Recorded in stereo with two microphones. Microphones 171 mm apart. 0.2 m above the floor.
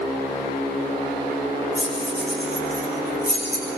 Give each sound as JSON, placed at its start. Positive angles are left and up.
{"t": 1.8, "sound": "keys jangling", "side_deg": -50, "distance_m": 10.0}